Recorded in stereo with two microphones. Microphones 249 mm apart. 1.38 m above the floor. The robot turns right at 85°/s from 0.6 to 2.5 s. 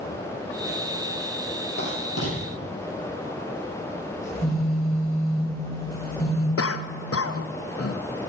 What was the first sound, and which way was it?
Writing, 40° left (ahead or behind).